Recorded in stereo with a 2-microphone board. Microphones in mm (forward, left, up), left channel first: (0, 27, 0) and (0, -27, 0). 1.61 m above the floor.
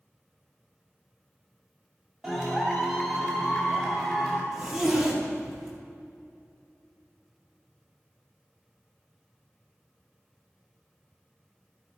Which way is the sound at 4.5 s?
10° right (ahead or behind).